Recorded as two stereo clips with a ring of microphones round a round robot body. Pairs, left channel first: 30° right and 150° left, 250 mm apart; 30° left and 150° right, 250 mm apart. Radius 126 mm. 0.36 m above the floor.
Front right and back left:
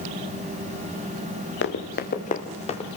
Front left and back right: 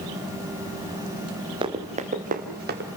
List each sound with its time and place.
1.6 s running footsteps: 80° right, 2.5 m; by 2.9 s 100° right, 3 m